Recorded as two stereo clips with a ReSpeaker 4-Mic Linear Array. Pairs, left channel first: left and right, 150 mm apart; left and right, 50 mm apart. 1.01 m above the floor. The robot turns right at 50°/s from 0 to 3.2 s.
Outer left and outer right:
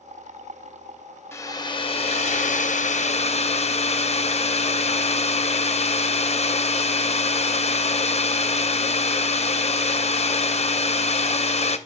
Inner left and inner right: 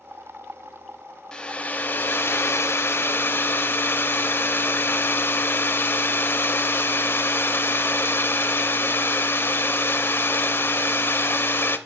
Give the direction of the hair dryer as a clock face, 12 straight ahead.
11 o'clock.